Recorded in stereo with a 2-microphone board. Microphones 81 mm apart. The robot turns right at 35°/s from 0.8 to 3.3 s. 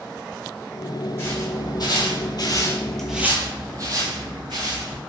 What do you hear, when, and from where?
1.2 s footsteps: 30° left (ahead or behind), 1.3 m; by 5.0 s 65° right (ahead or behind), 1.6 m